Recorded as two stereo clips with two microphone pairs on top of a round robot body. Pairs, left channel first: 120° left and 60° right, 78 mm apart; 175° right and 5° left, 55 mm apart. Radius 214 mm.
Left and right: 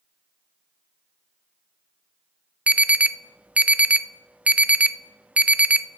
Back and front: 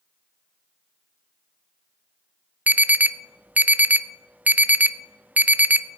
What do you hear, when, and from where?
2.7 s an alarm: 10° right, 0.9 m